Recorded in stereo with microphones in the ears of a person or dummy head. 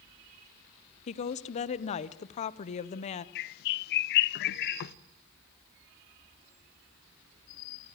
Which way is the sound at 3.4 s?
55° left (ahead or behind).